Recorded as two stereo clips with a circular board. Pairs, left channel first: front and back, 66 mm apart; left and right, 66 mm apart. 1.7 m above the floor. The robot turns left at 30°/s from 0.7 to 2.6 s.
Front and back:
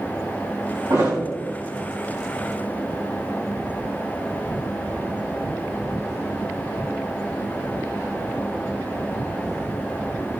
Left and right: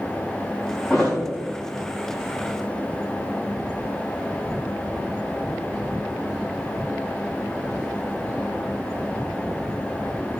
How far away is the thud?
About 3 m.